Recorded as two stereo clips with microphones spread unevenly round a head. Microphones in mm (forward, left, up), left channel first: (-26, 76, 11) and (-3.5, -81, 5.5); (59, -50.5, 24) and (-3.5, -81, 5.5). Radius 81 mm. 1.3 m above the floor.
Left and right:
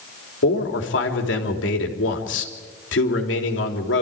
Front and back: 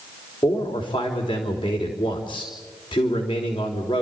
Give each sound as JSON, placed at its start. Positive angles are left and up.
{"t": 0.4, "sound": "a man speaking", "azimuth_deg": 80, "distance_m": 3.5}